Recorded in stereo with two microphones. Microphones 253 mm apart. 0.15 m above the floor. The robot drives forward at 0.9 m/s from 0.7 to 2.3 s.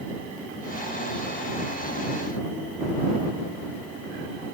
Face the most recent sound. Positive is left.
No sound to turn to.